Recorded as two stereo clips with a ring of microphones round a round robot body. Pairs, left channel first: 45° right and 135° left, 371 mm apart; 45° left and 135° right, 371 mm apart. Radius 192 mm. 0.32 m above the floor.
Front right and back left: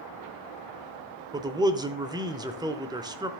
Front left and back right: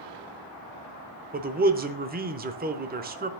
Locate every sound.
1.3 s a man speaking: 160° right, 0.9 m